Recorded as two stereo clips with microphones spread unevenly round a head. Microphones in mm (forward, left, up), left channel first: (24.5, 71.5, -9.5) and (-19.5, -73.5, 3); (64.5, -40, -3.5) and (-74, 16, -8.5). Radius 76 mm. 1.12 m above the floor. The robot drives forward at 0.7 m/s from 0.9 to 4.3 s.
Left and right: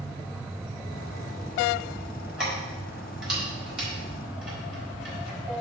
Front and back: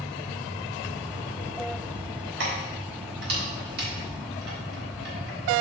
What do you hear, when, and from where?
2.4 s keys jangling: 165° left, 4 m; by 5.4 s 170° left, 5.5 m